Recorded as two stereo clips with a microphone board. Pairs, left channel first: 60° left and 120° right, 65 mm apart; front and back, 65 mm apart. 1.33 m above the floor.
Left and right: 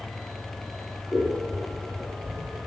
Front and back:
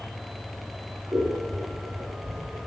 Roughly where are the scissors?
Behind left.